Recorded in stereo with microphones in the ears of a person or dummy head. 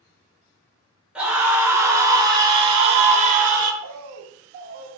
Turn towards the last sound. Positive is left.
turn(degrees=-40)  # may be behind; listen again after turning